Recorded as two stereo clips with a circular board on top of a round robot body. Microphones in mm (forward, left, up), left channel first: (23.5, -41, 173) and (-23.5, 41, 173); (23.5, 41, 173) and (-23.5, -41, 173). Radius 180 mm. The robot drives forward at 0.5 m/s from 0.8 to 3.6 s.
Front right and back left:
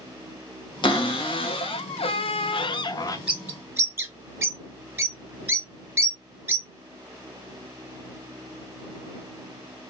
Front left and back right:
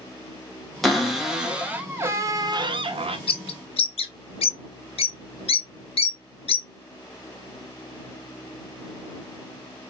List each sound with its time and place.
0.8 s a cupboard door: 30° right, 1.1 m; by 3.2 s 115° right, 0.6 m
3.3 s a bird: 45° left, 0.7 m; by 6.7 s 55° left, 0.6 m